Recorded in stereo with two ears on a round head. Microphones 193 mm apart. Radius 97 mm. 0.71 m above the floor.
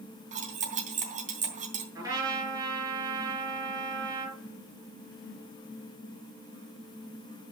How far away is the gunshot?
I don't hear a gunshot.